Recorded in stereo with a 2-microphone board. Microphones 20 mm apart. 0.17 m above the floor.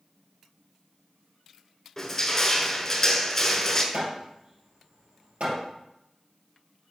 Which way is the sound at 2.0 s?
20° left (ahead or behind).